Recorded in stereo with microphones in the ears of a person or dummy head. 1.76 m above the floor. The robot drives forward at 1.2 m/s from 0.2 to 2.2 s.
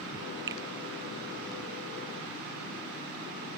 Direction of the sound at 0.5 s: 20° right (ahead or behind).